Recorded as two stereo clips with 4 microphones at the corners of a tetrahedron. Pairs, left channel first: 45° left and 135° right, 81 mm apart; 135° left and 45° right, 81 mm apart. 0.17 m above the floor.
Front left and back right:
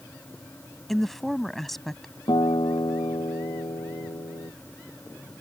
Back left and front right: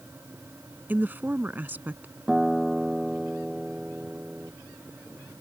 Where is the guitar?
40° left.